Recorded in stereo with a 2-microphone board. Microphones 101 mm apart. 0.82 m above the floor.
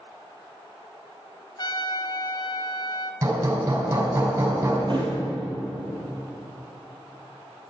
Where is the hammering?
40° right (ahead or behind), 5 m.